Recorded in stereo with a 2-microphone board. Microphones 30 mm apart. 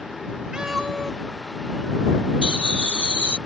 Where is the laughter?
50° right (ahead or behind).